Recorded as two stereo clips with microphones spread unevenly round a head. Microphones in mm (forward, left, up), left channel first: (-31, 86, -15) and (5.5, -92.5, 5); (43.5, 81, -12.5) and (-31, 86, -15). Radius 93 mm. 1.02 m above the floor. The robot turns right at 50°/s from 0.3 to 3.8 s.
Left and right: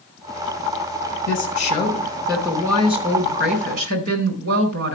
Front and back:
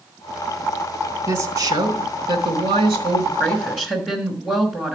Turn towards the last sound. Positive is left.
turn(degrees=-95)